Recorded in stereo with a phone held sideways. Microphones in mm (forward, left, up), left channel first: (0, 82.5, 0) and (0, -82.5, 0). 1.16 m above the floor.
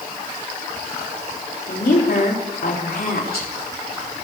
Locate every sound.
1.7 s a woman speaking: 80° left, 4 m